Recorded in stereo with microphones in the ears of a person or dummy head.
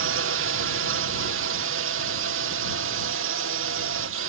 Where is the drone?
65° right (ahead or behind).